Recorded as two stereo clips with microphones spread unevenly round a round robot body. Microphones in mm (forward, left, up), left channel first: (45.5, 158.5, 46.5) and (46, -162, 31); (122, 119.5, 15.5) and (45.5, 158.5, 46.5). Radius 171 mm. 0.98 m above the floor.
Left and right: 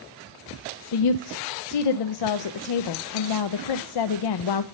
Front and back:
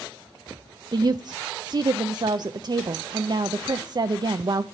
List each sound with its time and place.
0.9 s a woman speaking: 95° left, 0.6 m